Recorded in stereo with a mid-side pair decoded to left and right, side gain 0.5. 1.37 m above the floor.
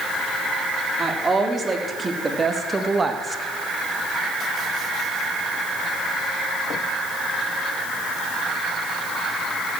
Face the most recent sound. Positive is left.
turn(degrees=-25)